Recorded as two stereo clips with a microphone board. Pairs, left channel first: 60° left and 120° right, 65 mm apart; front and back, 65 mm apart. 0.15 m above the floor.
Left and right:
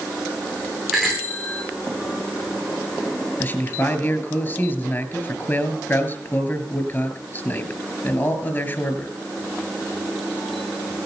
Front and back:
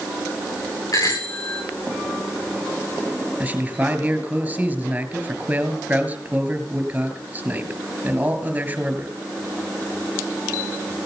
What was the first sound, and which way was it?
A bicycle bell, 35° right.